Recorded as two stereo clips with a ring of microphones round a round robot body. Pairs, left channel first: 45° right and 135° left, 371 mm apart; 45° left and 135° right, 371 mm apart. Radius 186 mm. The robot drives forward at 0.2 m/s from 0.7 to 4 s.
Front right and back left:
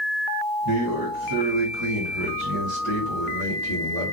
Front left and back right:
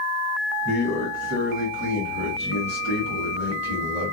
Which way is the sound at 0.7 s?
105° left.